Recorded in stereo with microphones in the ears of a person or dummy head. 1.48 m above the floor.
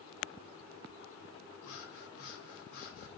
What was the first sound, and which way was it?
Breathing, 75° left (ahead or behind).